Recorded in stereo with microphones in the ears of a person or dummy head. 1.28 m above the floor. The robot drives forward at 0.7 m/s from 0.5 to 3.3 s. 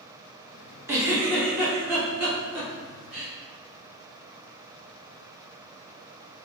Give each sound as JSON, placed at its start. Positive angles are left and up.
{"t": 0.9, "sound": "a giggle", "side_deg": -10, "distance_m": 1.0}